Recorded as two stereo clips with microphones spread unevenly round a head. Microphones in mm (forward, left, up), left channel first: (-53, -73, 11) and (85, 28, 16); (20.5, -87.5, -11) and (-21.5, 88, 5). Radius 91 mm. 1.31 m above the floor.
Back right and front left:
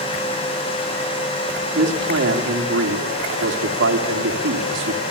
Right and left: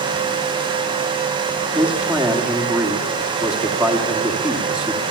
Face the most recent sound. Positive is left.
turn(degrees=20)